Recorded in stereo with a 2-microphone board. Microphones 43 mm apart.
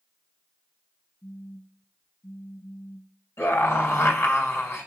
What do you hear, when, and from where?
1.2 s a phone buzzing: 55° left (ahead or behind), 1.0 m
3.4 s a scream: 70° left (ahead or behind), 3.5 m